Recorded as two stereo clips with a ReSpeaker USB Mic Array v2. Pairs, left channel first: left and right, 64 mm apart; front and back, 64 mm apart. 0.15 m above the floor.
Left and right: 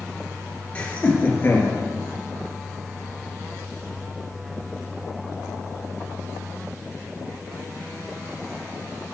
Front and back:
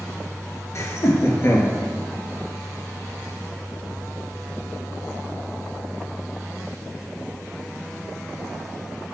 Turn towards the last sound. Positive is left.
turn(degrees=40)